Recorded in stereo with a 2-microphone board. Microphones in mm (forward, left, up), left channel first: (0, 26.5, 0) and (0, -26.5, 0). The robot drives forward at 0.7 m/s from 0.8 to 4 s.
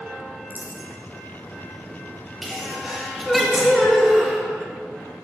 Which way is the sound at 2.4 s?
5° right (ahead or behind).